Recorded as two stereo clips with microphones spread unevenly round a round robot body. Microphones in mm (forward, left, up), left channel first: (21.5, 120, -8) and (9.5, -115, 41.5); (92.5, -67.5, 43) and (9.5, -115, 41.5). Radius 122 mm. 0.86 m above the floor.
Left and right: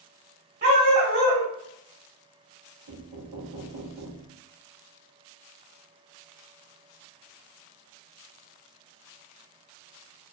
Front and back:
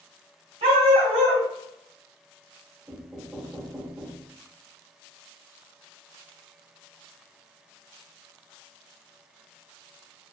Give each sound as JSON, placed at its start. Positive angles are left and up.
{"t": 0.6, "sound": "a dog barking", "azimuth_deg": -145, "distance_m": 1.9}
{"t": 2.9, "sound": "knocking", "azimuth_deg": -75, "distance_m": 1.1}